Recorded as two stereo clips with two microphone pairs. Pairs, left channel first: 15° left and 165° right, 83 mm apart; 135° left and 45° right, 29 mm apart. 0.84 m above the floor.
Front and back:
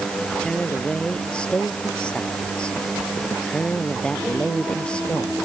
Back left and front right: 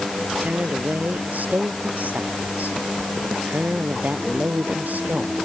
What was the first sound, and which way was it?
A woman speaking, 60° right.